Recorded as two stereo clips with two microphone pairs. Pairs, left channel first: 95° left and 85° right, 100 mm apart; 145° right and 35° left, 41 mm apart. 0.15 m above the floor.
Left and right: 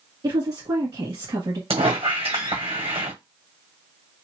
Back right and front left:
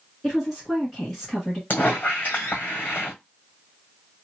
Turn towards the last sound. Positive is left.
turn(degrees=-105)